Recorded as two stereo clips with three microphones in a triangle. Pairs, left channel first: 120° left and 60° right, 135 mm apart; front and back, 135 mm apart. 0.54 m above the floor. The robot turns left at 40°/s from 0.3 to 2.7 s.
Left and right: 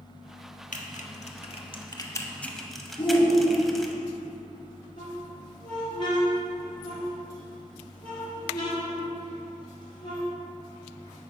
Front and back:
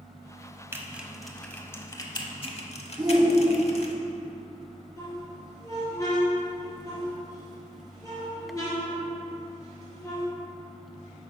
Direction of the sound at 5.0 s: 65° left.